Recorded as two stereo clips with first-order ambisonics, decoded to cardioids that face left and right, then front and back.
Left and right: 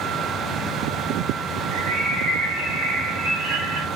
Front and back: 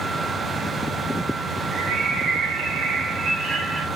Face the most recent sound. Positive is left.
turn(degrees=-125)